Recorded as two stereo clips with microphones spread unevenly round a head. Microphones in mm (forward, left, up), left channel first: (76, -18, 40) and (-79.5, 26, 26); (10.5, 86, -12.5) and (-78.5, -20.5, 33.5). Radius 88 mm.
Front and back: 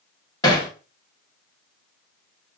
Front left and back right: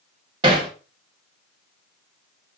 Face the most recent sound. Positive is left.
turn(degrees=-80)